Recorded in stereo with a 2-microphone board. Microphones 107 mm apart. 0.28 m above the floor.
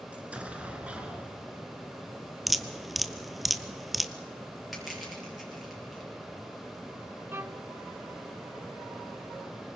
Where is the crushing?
Centre (ahead or behind), 6.5 m.